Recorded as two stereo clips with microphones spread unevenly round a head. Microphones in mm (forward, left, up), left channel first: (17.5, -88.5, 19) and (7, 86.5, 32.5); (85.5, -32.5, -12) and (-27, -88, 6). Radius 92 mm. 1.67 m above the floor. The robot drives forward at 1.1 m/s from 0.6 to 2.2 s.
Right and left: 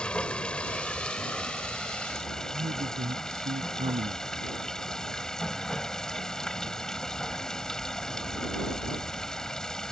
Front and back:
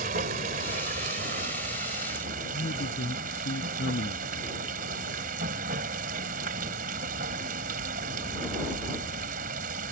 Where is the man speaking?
40° left.